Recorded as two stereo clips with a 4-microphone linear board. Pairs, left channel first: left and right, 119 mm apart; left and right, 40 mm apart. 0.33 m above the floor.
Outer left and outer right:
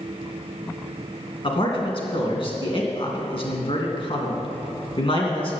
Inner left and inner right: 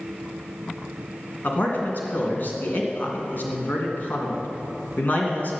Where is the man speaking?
50° left (ahead or behind), 3 m.